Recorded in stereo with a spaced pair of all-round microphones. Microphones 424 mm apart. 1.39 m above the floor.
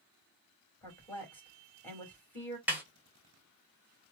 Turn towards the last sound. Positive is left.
turn(degrees=-5)  # may be behind; listen again after turning